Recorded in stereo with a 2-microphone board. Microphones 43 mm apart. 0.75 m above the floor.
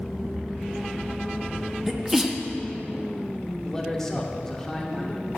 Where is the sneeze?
10° right (ahead or behind), 1.1 m.